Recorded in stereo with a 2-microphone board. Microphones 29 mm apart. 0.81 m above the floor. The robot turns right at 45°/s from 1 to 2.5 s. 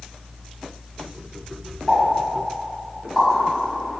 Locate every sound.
1.9 s a pop: 30° left (ahead or behind), 1.9 m; by 4.0 s 5° left (ahead or behind), 1.9 m